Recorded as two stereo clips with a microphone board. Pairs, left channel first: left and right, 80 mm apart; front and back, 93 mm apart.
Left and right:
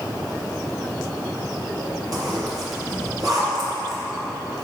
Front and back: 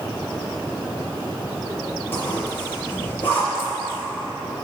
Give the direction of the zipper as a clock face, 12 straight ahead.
2 o'clock.